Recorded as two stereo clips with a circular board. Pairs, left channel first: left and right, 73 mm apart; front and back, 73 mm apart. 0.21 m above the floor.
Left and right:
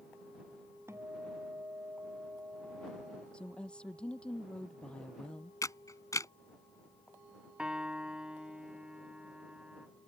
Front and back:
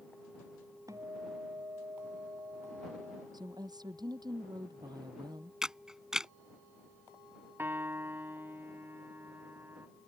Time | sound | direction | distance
0.9 | a guitar | 140° right | ?
3.3 | a woman speaking | 165° left | ?
5.6 | a camera shutter | 100° left | ?
7.6 | a piano | 155° right | ?